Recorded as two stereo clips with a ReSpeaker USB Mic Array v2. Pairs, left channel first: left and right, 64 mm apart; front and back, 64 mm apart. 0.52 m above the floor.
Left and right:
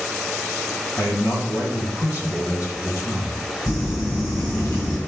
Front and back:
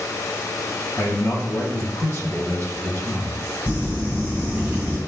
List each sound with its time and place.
1.0 s a man speaking: 50° left, 3 m
3.7 s crumpling: 115° left, 4.5 m